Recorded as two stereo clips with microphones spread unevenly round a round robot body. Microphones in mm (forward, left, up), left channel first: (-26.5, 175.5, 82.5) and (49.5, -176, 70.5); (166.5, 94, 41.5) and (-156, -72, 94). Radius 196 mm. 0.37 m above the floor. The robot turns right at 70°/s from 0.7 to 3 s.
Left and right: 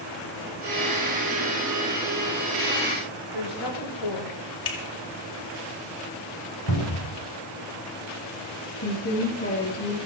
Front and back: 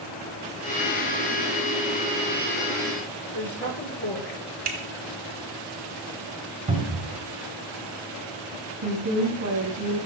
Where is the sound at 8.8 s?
155° left, 5 m.